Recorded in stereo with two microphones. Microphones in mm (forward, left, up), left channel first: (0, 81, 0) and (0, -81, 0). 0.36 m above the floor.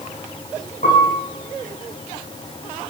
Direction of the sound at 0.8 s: 55° left (ahead or behind).